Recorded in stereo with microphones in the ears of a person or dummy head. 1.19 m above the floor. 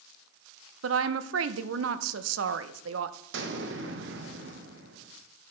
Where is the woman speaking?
80° right, 0.7 m.